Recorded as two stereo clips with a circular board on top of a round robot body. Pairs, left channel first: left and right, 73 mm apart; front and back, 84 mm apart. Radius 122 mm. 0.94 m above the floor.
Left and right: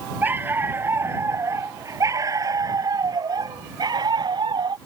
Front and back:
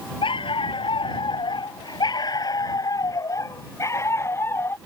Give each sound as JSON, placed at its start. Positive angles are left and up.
{"t": 0.2, "sound": "a dog barking", "azimuth_deg": -25}